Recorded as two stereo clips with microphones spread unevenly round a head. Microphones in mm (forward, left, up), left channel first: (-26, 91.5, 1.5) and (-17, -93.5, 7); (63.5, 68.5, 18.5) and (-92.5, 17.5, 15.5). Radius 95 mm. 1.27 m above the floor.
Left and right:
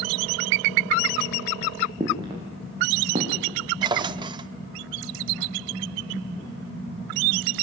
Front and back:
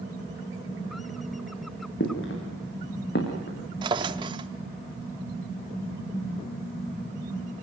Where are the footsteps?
20° right, 6 m; by 3.6 s 25° right, 6 m.